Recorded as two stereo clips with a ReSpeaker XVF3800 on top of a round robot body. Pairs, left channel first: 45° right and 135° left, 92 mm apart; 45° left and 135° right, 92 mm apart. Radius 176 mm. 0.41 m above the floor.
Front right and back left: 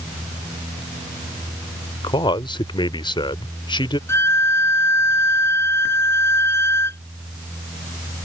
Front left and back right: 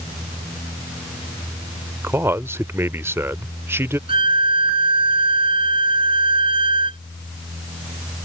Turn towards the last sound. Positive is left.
turn(degrees=-110)